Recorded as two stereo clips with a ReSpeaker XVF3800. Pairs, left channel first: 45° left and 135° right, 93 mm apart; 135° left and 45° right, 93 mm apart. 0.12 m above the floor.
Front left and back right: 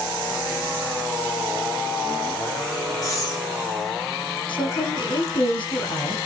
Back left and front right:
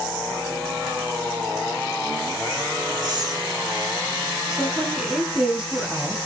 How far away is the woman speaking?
About 3.5 m.